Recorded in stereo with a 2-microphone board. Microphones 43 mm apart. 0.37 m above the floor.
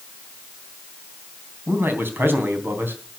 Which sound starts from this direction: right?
A man speaking, at 1.7 s.